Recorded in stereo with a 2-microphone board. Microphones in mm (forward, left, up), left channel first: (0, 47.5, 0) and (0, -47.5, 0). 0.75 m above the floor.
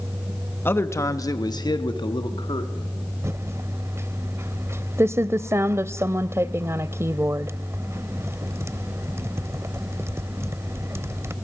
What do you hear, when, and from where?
0.7 s a man speaking: 20° left (ahead or behind), 1.1 m; by 2.9 s 60° left (ahead or behind), 2 m
3.2 s typing on a keyboard: 25° right (ahead or behind), 0.6 m